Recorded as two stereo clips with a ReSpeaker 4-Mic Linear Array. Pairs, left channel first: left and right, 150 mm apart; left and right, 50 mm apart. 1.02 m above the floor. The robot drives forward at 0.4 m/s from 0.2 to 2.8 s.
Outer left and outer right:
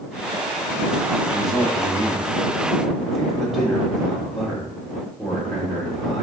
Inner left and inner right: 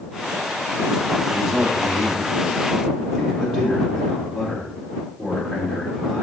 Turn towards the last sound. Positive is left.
turn(degrees=0)  # may be behind; listen again after turning